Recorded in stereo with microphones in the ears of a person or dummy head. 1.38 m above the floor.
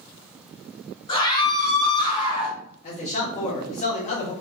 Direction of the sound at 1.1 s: 20° left (ahead or behind).